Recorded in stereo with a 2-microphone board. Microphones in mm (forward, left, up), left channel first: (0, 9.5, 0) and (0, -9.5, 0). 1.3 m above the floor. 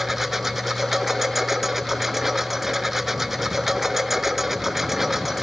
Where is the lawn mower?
10° right (ahead or behind).